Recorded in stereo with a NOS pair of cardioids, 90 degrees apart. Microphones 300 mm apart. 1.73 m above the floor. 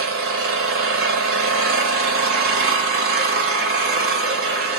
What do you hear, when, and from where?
0.0 s an engine running: 50° right, 0.9 m